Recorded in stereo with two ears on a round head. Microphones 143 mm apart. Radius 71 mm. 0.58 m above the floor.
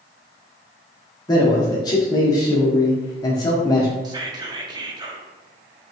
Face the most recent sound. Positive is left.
turn(degrees=-25)  # may be behind; listen again after turning